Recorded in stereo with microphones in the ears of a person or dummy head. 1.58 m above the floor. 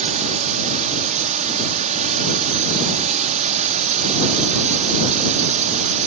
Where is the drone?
40° right (ahead or behind).